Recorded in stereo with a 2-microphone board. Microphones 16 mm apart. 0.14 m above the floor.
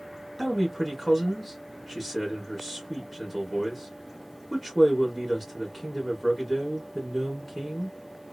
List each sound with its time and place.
0.4 s a man speaking: 5° left (ahead or behind), 1.5 m